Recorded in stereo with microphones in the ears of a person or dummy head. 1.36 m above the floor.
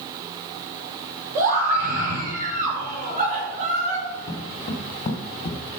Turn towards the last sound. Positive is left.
turn(degrees=40)  # may be behind; listen again after turning